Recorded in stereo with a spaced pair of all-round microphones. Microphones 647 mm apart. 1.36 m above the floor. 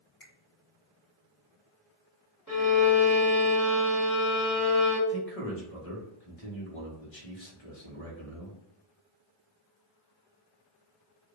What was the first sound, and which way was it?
A finger snap, 50° left (ahead or behind).